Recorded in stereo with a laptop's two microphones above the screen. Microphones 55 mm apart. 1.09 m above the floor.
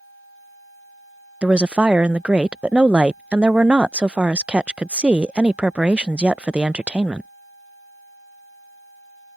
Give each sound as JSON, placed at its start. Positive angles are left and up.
{"t": 1.4, "sound": "a woman speaking", "side_deg": -20}